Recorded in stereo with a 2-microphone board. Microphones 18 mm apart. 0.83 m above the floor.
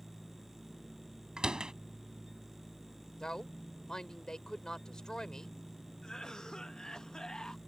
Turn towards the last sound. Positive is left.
turn(degrees=35)  # may be behind; listen again after turning